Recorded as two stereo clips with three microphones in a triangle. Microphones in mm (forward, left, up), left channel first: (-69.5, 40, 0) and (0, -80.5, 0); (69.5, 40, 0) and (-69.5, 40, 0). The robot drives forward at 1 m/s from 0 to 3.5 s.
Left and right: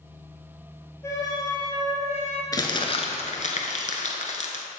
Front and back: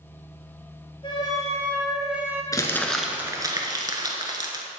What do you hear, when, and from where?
1.0 s a flute: 55° left, 1.7 m; by 2.4 s 110° left, 1.4 m
2.5 s crumpling: 60° left, 1.1 m; by 4.6 s 120° left, 1.1 m